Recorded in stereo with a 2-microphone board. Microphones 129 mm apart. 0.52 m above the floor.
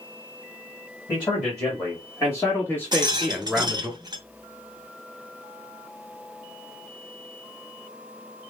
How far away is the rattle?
About 0.7 m.